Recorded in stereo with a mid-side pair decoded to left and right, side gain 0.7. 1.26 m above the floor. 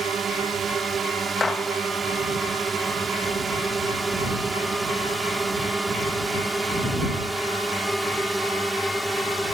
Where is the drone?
35° right; by 9.5 s straight ahead.